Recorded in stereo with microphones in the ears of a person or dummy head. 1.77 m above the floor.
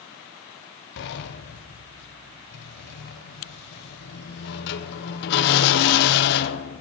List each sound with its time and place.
1.0 s a sliding door: 65° left (ahead or behind), 1.4 m